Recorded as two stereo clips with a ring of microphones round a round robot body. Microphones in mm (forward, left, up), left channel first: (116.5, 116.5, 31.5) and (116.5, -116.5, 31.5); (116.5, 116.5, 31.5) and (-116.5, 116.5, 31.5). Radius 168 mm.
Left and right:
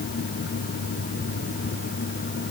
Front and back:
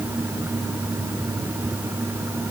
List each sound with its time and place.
Only background noise.